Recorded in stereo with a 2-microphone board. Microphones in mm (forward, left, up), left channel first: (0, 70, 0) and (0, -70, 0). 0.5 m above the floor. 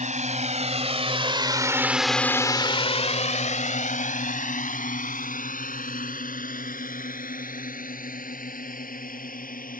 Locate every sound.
0.0 s a drone: 60° right (ahead or behind); by 9.8 s 85° left